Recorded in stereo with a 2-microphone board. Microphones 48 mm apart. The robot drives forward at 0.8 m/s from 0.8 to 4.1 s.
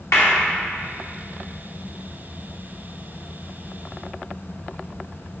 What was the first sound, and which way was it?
A clap, 80° left.